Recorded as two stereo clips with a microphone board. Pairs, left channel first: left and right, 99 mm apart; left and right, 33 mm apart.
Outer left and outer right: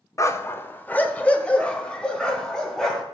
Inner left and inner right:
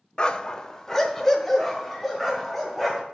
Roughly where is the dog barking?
Left.